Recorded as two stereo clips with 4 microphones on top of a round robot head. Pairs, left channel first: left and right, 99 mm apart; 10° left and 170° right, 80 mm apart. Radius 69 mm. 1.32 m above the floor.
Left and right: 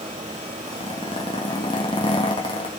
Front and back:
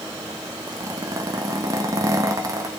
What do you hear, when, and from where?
0.7 s a zipper: 140° left, 1.3 m